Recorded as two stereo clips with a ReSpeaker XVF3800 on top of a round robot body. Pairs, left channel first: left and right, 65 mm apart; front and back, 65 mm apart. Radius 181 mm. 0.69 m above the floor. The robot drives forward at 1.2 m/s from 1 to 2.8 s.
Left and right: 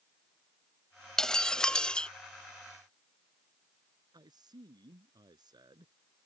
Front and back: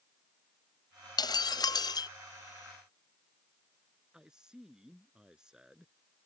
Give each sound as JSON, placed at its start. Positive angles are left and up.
{"t": 1.2, "sound": "breaking glass", "azimuth_deg": 10}
{"t": 4.1, "sound": "a man speaking", "azimuth_deg": -100}